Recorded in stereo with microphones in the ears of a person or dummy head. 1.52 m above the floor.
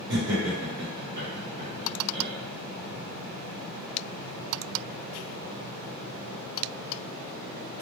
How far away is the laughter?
About 1.0 m.